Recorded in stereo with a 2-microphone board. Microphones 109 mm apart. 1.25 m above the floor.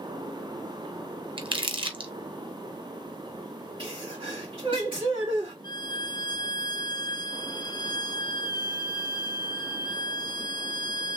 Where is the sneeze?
50° right (ahead or behind), 2 m.